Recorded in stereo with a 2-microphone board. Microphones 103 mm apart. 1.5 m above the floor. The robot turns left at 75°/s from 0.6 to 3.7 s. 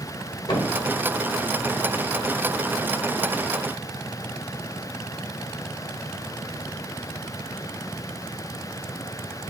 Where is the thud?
45° left (ahead or behind), 1.5 m; by 0.8 s 35° left (ahead or behind), 1.5 m.